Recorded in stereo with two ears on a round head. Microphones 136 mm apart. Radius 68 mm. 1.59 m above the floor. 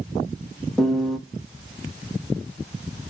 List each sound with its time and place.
0.8 s a piano: centre (ahead or behind), 0.8 m